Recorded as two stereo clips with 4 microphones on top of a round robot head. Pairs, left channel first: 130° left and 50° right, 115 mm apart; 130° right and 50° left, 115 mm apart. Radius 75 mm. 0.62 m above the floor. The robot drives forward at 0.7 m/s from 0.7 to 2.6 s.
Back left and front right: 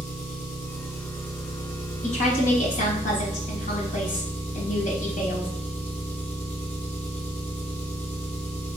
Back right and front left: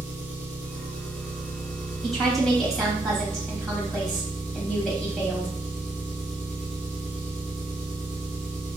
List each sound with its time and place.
0.0 s an engine running: 125° left, 4 m; by 8.8 s 135° left, 5 m
2.0 s a woman speaking: 140° left, 3 m; by 5.5 s 145° left, 3.5 m